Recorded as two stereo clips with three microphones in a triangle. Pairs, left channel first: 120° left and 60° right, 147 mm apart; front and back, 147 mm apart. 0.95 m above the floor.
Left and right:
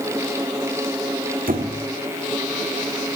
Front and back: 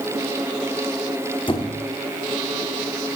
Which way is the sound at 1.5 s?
55° right.